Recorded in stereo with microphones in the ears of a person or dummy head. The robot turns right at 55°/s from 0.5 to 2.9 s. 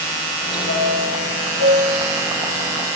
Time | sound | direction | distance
0.7 | a chime | 85° left | 8 m